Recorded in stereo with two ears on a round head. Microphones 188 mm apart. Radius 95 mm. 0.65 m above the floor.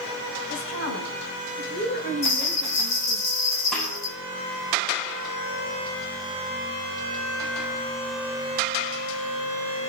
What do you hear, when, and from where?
0.5 s a woman speaking: 55° left (ahead or behind), 5 m; by 3.2 s 25° left (ahead or behind), 3.5 m
2.2 s a bell: 60° left (ahead or behind), 6.5 m
3.7 s a snare drum: centre (ahead or behind), 6.5 m